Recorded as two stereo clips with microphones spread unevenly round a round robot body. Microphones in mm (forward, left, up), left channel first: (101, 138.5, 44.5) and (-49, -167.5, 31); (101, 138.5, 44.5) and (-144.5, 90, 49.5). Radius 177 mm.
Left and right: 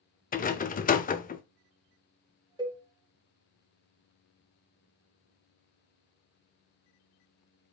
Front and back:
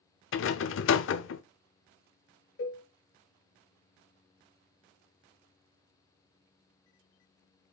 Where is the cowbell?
40° right, 1.8 m.